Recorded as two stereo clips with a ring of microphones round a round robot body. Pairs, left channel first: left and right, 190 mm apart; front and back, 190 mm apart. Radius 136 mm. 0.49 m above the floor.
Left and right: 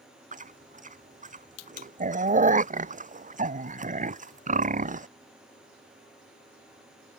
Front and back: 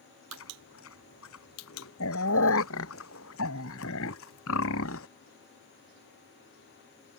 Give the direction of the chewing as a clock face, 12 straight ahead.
1 o'clock.